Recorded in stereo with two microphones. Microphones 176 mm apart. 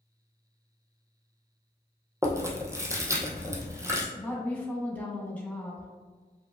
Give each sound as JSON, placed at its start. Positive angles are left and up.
{"t": 2.2, "sound": "chewing", "side_deg": -15, "distance_m": 1.0}
{"t": 4.2, "sound": "a woman speaking", "side_deg": 10, "distance_m": 1.4}